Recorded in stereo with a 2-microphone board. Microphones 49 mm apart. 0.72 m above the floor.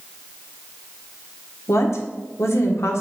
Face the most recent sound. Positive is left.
turn(degrees=70)  # may be behind; listen again after turning